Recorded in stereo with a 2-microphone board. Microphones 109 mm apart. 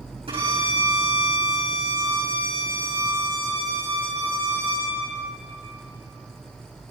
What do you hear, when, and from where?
0.3 s a violin: 65° right (ahead or behind), 5.5 m